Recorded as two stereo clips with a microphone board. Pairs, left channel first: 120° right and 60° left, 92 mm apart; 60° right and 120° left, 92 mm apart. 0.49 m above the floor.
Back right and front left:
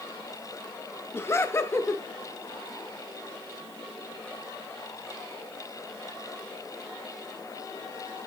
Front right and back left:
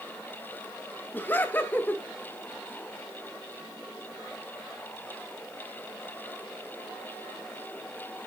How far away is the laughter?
About 0.8 m.